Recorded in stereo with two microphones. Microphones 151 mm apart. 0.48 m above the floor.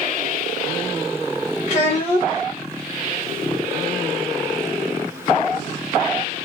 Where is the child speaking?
50° left (ahead or behind), 1.2 m.